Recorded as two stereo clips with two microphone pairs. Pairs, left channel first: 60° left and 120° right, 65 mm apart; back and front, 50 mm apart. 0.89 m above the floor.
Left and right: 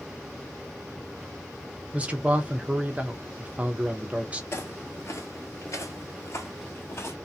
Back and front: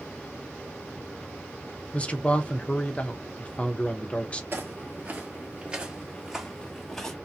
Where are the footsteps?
25° left, 1.3 m; by 7.2 s 100° left, 1.4 m.